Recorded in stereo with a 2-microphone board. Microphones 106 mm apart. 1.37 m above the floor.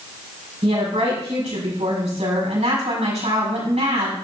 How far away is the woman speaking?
About 5.5 m.